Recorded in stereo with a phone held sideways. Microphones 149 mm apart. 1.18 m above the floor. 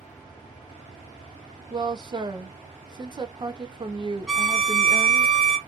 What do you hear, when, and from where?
1.7 s a woman speaking: 30° right (ahead or behind), 0.5 m
4.3 s a violin: 5° left (ahead or behind), 0.5 m